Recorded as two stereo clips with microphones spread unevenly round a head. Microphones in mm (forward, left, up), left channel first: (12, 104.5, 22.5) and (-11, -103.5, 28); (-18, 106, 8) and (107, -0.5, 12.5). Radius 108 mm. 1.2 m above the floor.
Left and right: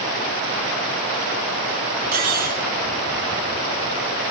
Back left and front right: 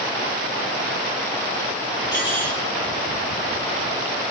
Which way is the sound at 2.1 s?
145° right.